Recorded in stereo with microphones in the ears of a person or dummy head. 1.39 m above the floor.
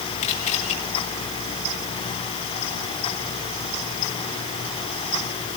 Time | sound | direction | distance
0.2 | a camera shutter | 40° left (ahead or behind) | 7 m